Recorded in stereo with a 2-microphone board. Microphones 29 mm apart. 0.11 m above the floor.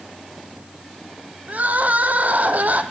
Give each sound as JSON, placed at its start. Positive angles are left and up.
{"t": 1.5, "sound": "crying", "side_deg": -60, "distance_m": 1.1}